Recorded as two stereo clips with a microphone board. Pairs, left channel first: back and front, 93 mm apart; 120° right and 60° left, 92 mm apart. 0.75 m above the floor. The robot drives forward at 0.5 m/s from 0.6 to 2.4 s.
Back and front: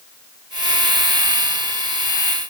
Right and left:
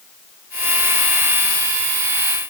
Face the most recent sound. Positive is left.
No sound to turn to.